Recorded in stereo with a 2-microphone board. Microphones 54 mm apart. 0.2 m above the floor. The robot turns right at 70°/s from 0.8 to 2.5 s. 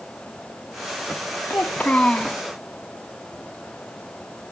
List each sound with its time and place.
1.5 s a child speaking: 110° left, 0.8 m; by 2.4 s 175° left, 0.8 m